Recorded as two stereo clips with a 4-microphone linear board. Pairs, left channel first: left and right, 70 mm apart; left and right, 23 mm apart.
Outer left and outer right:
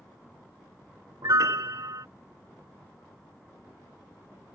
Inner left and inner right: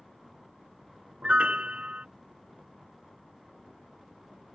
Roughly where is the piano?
Right.